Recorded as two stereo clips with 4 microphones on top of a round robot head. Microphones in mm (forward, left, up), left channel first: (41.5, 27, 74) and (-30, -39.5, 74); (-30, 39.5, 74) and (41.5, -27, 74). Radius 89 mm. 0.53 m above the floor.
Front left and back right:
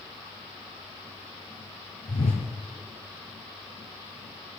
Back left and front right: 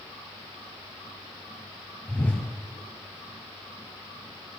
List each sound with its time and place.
2.1 s a whoosh: 60° left, 1.8 m